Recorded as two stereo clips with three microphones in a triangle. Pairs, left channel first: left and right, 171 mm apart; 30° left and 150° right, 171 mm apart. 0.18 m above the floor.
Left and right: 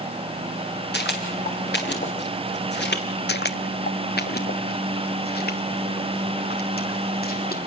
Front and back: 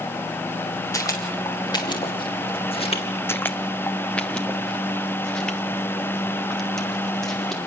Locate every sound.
0.9 s footsteps: 100° left, 6 m; by 3.0 s 85° left, 4.5 m
3.3 s footsteps: 105° left, 0.7 m; by 7.6 s 120° left, 4.5 m